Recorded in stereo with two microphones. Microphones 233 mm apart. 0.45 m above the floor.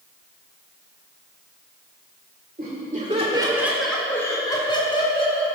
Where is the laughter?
40° right (ahead or behind), 1.8 m; by 5.5 s 25° left (ahead or behind), 3.5 m.